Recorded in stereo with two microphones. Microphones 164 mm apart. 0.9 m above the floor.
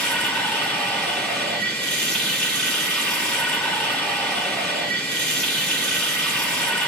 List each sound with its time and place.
0.0 s running water: 5° left (ahead or behind), 5.5 m